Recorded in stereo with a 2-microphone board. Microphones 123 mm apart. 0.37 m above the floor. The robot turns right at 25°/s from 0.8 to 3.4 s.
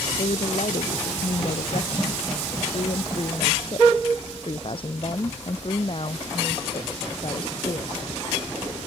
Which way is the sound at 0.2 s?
70° left.